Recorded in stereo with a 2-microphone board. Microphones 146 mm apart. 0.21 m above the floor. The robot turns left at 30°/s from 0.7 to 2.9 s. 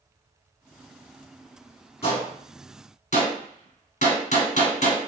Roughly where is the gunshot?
Left.